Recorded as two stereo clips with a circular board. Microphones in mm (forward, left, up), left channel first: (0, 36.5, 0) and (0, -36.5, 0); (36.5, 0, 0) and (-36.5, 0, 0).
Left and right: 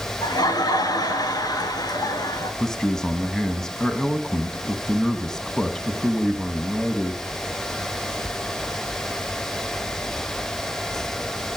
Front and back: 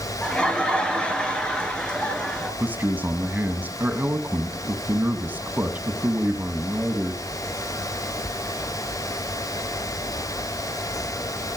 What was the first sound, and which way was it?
Laughter, 75° left.